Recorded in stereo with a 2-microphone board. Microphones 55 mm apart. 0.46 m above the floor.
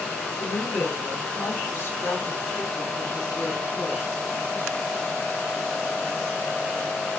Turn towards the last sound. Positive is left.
turn(degrees=60)  # may be behind; listen again after turning